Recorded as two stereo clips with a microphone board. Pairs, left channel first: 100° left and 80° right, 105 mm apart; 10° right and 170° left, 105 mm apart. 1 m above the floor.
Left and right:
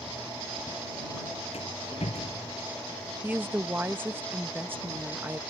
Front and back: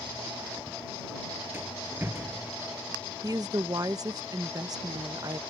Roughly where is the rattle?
Left.